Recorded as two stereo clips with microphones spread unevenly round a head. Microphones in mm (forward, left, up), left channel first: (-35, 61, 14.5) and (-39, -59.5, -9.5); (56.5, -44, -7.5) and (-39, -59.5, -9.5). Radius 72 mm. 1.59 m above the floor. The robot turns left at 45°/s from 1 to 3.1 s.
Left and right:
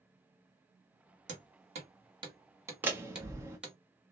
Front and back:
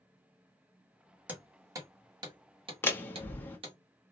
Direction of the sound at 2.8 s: 5° right.